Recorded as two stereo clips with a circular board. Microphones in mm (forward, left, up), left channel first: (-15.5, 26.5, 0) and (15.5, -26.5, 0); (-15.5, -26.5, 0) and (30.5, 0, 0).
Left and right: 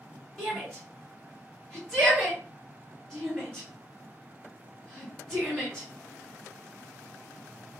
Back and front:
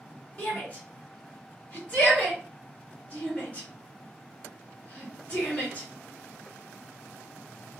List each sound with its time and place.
0.4 s a shout: 175° right, 1.5 m